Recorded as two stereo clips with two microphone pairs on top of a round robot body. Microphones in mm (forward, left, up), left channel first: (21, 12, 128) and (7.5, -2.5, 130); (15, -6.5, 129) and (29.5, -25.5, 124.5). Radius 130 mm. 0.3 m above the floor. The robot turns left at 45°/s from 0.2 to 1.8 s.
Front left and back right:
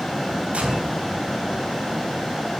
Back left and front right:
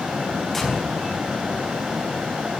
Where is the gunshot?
140° right, 4.5 m; by 1.0 s 160° right, 4.5 m.